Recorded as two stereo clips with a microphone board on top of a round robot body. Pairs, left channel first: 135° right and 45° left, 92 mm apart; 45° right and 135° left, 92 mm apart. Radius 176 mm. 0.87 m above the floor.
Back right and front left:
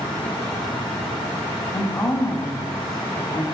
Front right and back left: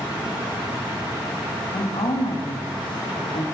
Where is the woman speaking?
75° right, 1.4 m.